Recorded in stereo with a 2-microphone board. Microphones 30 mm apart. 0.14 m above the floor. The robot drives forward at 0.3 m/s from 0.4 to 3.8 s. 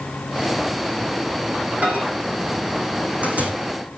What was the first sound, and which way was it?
A microwave, 50° right (ahead or behind).